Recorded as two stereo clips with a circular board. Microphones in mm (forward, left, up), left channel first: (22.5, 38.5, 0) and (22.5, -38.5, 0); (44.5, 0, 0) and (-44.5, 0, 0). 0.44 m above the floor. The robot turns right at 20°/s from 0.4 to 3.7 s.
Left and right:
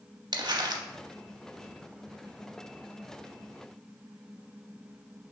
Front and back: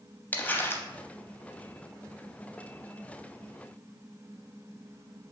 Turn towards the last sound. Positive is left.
turn(degrees=-5)